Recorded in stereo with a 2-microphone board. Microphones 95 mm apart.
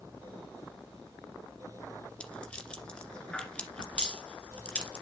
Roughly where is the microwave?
No microwave in this recording.